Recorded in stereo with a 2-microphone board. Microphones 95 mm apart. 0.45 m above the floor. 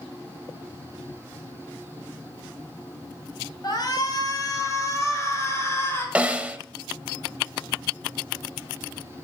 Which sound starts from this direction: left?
A shout, at 3.6 s.